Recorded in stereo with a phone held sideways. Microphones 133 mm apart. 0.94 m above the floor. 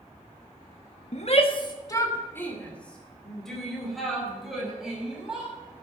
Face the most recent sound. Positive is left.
turn(degrees=-5)  # may be behind; listen again after turning